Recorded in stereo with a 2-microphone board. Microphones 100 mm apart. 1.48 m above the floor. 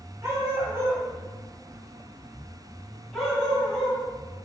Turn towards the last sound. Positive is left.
turn(degrees=10)  # may be behind; listen again after turning